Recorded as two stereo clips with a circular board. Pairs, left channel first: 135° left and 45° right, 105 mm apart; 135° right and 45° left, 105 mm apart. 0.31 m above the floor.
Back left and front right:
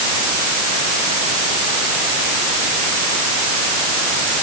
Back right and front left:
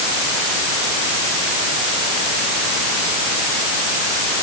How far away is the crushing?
No crushing in this recording.